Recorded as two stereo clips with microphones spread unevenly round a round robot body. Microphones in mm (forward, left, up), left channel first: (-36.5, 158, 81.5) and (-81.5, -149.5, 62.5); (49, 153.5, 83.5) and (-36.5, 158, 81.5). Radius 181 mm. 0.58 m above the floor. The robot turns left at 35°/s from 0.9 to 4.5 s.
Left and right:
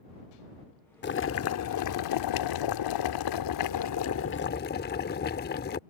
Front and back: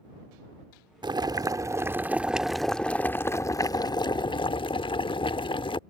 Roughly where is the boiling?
Behind left.